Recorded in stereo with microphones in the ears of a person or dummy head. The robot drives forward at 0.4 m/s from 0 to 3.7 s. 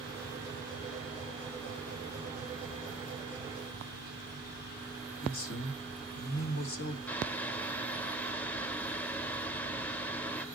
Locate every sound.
5.2 s a man speaking: 70° left (ahead or behind), 1.7 m
7.1 s boiling: 10° left (ahead or behind), 0.5 m